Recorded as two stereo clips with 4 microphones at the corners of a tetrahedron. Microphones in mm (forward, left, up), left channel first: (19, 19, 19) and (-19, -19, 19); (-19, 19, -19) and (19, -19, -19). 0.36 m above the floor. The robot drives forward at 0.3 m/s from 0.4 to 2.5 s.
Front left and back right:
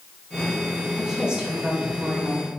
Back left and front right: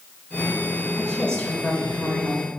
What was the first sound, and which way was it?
A woman speaking, 175° left.